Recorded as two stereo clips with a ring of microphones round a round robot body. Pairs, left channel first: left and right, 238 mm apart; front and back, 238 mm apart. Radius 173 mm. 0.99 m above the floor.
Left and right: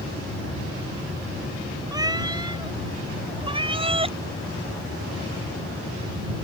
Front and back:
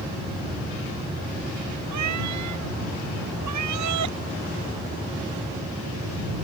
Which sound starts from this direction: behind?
A cat meowing, at 1.9 s.